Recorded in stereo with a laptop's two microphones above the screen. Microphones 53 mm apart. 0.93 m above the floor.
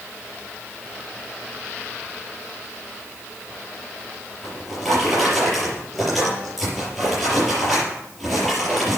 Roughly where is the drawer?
Centre.